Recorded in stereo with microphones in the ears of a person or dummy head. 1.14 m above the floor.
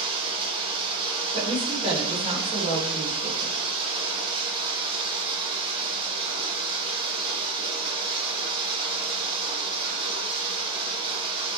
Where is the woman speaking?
30° right (ahead or behind), 5 m.